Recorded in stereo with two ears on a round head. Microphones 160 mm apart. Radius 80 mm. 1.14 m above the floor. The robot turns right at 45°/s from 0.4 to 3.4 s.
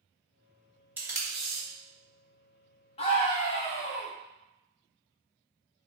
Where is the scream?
30° left (ahead or behind), 0.5 m.